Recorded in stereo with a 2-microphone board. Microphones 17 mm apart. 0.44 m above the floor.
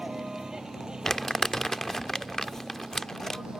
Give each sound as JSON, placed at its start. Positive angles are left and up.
{"t": 0.0, "sound": "a vehicle", "side_deg": -50}
{"t": 1.1, "sound": "crumpling", "side_deg": 25}